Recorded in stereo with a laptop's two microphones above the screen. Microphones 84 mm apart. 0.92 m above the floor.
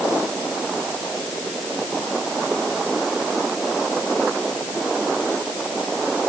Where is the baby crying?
No baby crying in this recording.